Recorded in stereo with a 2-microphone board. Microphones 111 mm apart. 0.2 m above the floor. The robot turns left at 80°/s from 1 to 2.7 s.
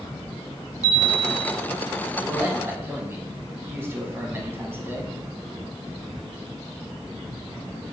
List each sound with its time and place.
0.8 s a chime: 135° left, 0.7 m; by 1.5 s 95° left, 0.7 m
2.2 s a man speaking: 30° right (ahead or behind), 1.0 m; by 5.1 s 20° right (ahead or behind), 1.0 m